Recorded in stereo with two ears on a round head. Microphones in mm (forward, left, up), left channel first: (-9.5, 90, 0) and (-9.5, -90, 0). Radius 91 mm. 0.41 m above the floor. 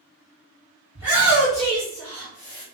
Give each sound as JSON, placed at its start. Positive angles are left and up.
{"t": 0.9, "sound": "a shout", "side_deg": -10, "distance_m": 1.7}